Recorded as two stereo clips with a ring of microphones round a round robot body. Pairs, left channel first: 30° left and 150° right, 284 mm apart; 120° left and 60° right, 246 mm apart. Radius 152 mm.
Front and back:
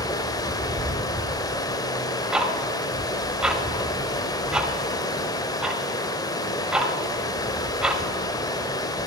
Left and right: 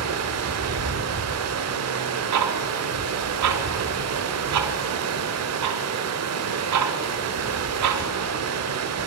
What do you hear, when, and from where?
0.0 s running water: 45° right, 0.7 m
2.3 s ticking: 60° right, 0.8 m